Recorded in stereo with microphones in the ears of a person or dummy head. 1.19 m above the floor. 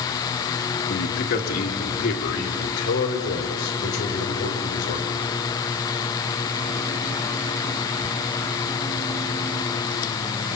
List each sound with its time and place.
0.9 s a man speaking: 50° left (ahead or behind), 1.8 m; by 5.3 s 65° left (ahead or behind), 6 m